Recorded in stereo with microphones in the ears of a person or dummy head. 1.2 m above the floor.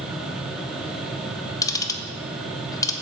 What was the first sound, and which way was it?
A fan, 5° right (ahead or behind).